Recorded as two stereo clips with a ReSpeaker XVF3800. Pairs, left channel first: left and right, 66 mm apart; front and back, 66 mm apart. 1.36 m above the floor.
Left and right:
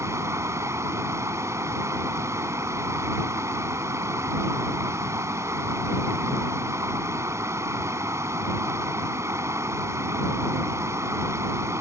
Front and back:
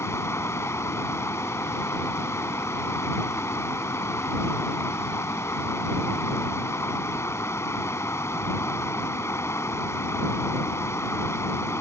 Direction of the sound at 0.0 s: 45° right.